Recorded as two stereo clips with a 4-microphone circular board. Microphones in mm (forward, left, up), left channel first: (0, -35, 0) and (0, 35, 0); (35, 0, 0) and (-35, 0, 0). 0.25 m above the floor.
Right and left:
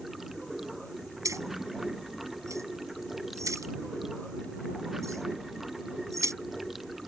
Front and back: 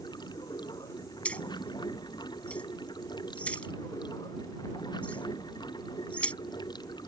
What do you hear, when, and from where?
0.0 s running water: 5° left
1.2 s keys jangling: 65° left